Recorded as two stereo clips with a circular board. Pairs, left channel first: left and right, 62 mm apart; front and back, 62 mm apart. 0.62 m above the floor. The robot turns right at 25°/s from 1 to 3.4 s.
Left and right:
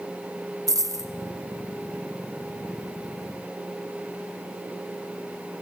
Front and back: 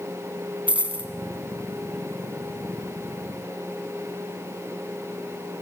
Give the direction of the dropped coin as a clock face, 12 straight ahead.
4 o'clock.